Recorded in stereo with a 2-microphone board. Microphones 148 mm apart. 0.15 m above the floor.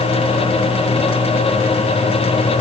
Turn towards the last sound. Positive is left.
No sound to turn to.